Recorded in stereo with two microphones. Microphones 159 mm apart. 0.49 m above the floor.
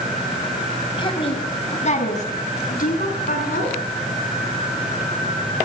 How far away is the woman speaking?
About 3.5 m.